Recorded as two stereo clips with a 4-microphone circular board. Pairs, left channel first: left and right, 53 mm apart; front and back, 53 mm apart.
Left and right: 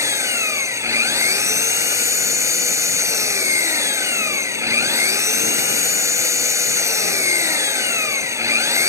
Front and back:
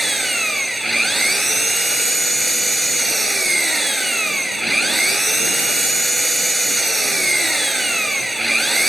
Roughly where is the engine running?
Right.